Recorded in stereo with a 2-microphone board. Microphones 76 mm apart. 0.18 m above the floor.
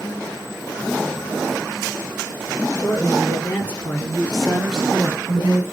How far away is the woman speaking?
About 3.5 m.